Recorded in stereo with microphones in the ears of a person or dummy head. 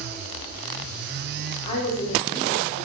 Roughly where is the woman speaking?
Left.